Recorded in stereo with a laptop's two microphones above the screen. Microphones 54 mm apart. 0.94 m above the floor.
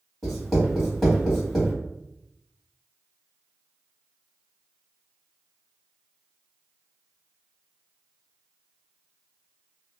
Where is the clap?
No clap in this recording.